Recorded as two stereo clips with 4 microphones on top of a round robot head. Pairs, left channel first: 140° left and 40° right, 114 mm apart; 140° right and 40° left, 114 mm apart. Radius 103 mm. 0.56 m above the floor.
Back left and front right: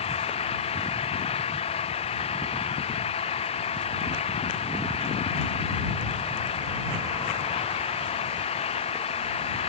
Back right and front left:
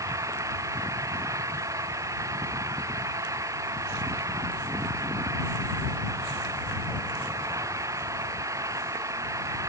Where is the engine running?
105° left.